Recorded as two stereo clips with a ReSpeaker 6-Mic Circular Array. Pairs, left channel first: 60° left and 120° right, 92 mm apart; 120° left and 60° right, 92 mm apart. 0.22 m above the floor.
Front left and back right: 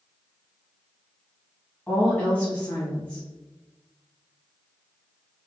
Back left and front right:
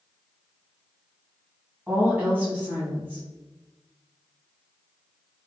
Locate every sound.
1.9 s a woman speaking: 5° right, 1.2 m